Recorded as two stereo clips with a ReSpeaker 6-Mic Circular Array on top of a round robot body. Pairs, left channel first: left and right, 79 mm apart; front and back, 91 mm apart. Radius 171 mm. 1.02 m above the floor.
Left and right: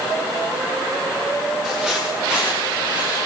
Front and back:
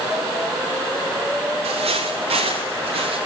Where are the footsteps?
175° right, 9 m; by 3.2 s 165° right, 8 m.